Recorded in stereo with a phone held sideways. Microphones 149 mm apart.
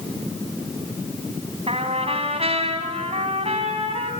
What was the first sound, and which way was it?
A trumpet, 45° right (ahead or behind).